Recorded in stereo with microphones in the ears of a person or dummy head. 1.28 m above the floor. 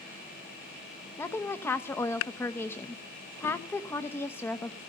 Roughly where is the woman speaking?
Centre.